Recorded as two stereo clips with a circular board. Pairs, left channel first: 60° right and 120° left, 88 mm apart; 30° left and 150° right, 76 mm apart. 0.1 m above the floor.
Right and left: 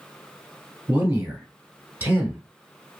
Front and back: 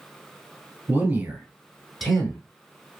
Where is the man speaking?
175° left, 1.6 m; by 2.4 s 90° left, 1.3 m.